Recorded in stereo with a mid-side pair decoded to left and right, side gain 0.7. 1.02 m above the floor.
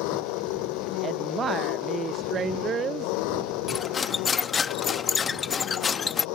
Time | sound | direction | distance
0.0 | an engine running | 70° left | ?
1.0 | a woman speaking | 35° right | ?
3.7 | cutlery clinking | 25° left | ?